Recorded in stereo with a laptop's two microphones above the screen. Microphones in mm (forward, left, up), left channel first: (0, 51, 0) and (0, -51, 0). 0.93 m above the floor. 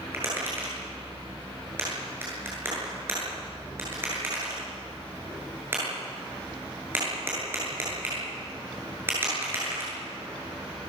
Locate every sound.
0.1 s tapping: 20° right (ahead or behind), 9 m